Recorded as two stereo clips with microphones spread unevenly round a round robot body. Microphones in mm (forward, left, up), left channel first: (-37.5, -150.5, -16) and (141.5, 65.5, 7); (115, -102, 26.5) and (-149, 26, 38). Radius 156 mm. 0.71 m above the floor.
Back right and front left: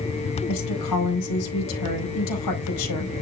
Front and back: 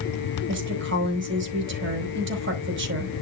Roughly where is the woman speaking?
Behind right.